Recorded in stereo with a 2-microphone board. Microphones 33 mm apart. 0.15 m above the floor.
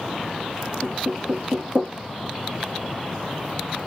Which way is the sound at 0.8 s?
50° right (ahead or behind).